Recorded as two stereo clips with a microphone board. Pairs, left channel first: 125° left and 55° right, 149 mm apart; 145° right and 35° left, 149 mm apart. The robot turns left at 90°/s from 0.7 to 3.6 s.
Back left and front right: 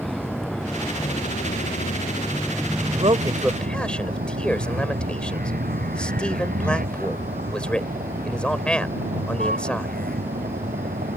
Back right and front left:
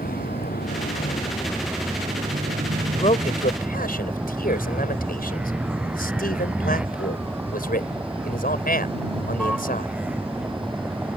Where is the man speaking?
80° right; by 9.9 s 150° right.